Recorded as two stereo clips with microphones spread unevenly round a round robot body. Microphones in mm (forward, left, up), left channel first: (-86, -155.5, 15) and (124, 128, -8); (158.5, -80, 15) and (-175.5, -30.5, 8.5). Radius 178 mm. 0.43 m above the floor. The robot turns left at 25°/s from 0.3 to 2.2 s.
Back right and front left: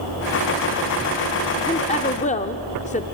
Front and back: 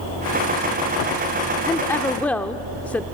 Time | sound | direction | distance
1.7 | a woman speaking | 75° right | 0.8 m